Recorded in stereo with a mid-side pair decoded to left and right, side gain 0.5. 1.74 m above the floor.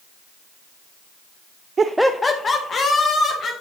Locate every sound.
1.8 s laughter: 40° right, 0.5 m; by 3.5 s 50° left, 2.5 m